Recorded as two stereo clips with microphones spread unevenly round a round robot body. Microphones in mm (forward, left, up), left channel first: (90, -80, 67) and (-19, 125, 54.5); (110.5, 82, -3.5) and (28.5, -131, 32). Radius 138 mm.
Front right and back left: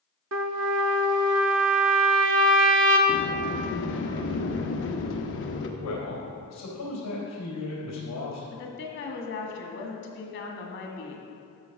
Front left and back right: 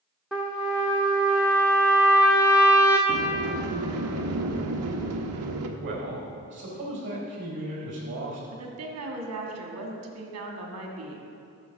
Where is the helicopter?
I don't hear a helicopter.